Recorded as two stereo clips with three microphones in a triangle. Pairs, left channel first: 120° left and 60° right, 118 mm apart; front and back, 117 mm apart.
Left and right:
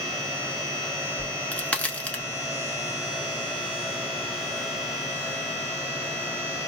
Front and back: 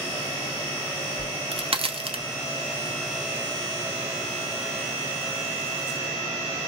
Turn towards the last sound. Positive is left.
turn(degrees=-165)